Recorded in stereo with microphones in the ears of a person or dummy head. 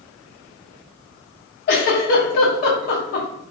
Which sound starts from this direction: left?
A giggle, at 1.7 s.